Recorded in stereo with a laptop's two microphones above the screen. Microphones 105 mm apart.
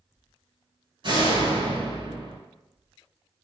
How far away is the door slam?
About 5 m.